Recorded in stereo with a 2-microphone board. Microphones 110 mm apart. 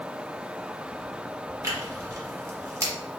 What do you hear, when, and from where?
1.6 s tearing paper: 25° right (ahead or behind), 1.4 m